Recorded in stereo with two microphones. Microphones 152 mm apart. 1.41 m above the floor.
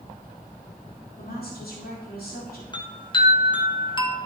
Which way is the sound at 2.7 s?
30° left (ahead or behind).